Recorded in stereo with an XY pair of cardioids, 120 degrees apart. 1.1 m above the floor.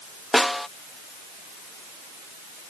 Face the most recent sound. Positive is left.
turn(degrees=5)